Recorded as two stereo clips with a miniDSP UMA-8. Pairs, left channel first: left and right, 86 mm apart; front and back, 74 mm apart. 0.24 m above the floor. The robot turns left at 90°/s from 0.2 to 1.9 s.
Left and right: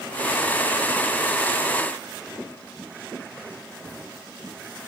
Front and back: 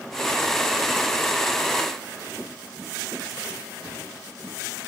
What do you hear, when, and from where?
Only background noise.